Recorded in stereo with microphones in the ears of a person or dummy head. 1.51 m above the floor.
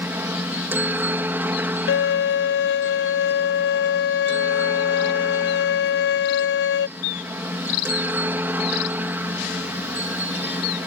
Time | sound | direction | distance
0.0 | a helicopter | 10° right (ahead or behind) | ?
1.9 | a violin | 65° left (ahead or behind) | ?